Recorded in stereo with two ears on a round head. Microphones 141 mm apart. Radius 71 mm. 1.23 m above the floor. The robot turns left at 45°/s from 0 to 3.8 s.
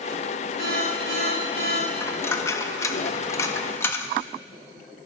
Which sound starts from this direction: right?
An alarm, at 0.6 s.